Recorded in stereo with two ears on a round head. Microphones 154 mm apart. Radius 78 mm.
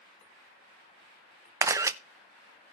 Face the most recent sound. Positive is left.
turn(degrees=-15)  # may be behind; listen again after turning